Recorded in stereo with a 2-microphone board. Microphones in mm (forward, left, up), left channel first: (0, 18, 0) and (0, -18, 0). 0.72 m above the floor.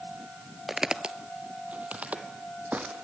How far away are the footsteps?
About 0.7 m.